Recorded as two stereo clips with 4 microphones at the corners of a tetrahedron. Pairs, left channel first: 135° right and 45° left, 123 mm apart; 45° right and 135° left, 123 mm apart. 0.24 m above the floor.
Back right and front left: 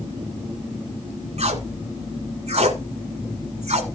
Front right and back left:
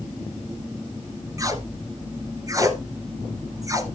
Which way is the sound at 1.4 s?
75° left.